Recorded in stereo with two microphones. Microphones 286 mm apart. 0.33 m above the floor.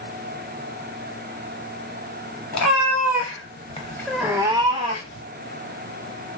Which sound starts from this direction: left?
A cat meowing, at 2.5 s.